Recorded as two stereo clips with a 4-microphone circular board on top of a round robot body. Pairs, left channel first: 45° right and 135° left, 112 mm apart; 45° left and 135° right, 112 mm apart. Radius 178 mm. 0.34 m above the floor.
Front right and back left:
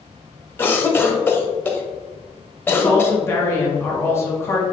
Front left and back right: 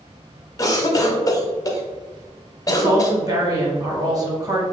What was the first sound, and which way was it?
A cough, 15° left.